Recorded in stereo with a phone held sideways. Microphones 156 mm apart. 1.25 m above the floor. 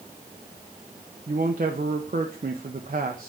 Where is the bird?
I don't hear a bird.